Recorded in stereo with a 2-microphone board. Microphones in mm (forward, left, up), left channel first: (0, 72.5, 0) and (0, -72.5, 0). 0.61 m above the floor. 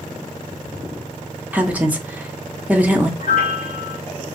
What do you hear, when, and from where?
1.5 s a woman speaking: 10° right (ahead or behind), 0.7 m
3.2 s a piano: 65° left (ahead or behind), 1.2 m